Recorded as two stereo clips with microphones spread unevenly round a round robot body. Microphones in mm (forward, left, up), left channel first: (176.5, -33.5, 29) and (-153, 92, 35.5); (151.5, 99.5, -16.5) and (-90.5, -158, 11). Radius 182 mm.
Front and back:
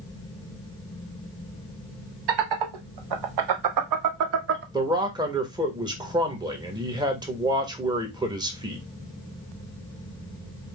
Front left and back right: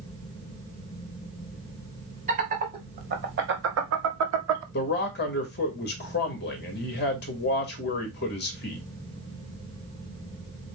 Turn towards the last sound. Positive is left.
turn(degrees=85)